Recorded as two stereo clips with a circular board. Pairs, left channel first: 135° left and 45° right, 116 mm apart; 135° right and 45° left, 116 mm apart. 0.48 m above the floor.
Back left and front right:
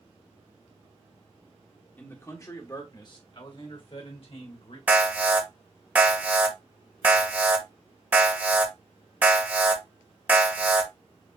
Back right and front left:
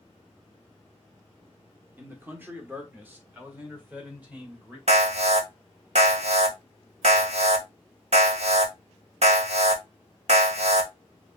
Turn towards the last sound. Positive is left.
turn(degrees=30)